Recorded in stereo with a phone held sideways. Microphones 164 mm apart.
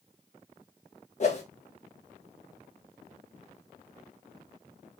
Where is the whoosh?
45° left (ahead or behind), 0.7 m.